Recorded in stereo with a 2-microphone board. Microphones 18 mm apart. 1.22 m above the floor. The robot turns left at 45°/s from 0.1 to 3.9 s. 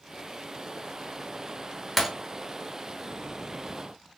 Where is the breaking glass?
10° right (ahead or behind), 0.9 m.